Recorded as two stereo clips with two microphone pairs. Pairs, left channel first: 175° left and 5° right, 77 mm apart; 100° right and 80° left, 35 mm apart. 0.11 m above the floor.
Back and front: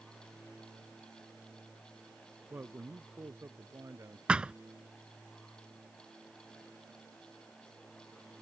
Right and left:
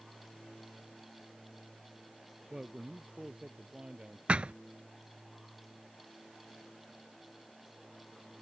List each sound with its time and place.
2.5 s a man speaking: 25° left; by 4.2 s 30° left
4.3 s a thud: 60° left